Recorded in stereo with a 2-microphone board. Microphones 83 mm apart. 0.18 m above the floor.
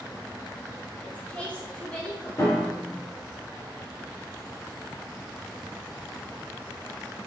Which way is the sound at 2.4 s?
35° left (ahead or behind).